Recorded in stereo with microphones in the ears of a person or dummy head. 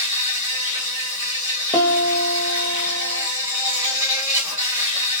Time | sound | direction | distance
0.0 | an insect | 20° right (ahead or behind) | 1.6 m
1.7 | a piano | 15° left (ahead or behind) | 1.3 m